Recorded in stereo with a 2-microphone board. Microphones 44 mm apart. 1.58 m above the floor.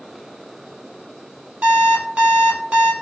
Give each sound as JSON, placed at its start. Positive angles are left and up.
{"t": 1.6, "sound": "an alarm clock", "side_deg": -30, "distance_m": 1.0}